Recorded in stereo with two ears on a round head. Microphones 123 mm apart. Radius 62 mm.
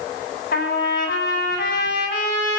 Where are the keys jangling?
I don't hear keys jangling.